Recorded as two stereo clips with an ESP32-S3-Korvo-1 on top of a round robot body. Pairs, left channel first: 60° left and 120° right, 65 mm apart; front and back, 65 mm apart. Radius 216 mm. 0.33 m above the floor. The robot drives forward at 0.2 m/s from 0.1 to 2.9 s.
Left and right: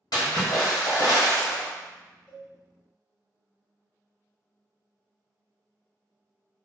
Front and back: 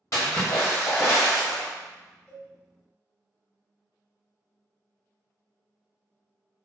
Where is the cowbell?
65° right, 1.5 m; by 2.5 s 70° right, 1.5 m.